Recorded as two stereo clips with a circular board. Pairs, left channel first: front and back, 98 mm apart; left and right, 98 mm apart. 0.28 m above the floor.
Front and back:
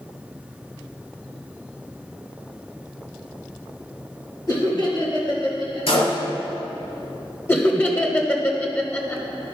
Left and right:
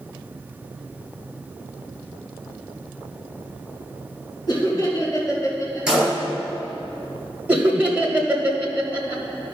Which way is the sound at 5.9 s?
10° right.